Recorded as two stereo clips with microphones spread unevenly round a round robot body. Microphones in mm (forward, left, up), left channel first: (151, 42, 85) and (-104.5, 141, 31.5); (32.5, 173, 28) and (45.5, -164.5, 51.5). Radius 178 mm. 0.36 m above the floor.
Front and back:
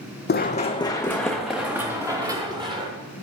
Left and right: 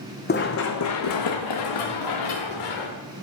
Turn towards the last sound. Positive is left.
turn(degrees=85)